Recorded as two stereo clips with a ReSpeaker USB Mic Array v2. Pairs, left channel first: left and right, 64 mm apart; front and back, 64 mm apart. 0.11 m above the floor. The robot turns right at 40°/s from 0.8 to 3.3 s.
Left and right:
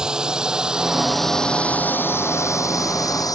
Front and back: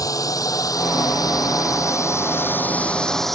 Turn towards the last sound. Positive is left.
turn(degrees=85)